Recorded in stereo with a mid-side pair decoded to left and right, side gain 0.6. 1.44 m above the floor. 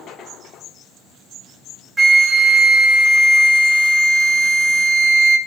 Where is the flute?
25° right, 0.7 m.